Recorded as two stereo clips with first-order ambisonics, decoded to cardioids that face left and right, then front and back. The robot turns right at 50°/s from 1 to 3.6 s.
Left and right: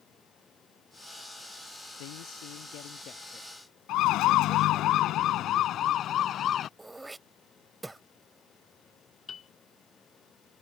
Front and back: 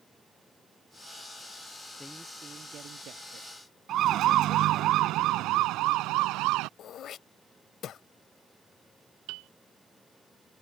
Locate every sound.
2.0 s a man speaking: 85° left; by 4.9 s 165° left
3.9 s a siren: 130° left; by 6.7 s 150° left
6.8 s throat clearing: 10° right
9.3 s a piano: 160° left